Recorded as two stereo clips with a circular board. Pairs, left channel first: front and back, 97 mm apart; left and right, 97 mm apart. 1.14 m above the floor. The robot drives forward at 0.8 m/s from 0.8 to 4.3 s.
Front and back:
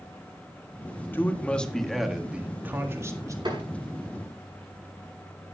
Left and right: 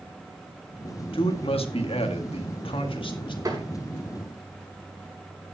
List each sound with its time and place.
1.1 s a man speaking: 70° left, 1.8 m; by 3.4 s 125° left, 2 m
3.5 s tapping: 140° right, 5 m; by 3.6 s 145° right, 5 m